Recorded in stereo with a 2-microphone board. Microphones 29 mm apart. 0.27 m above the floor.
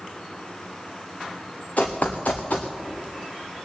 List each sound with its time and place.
1.8 s running footsteps: 60° left (ahead or behind), 1.4 m